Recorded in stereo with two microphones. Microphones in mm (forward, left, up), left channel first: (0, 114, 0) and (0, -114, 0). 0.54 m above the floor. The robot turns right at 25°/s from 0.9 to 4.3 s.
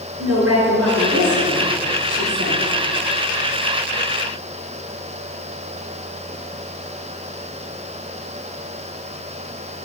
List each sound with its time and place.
0.2 s a woman speaking: 85° right, 6 m; by 2.6 s 45° right, 6 m